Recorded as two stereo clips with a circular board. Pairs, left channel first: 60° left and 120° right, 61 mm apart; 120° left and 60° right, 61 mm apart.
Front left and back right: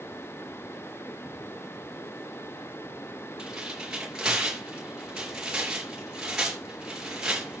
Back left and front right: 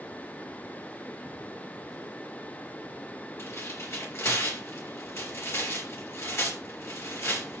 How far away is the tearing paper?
About 4.5 m.